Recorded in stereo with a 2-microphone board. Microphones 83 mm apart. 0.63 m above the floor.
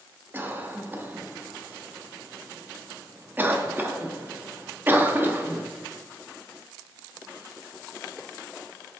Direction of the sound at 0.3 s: 25° right (ahead or behind).